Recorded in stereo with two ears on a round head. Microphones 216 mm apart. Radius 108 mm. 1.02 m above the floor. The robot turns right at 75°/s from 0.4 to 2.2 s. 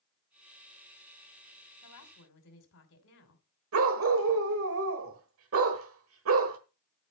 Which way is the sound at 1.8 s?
85° left.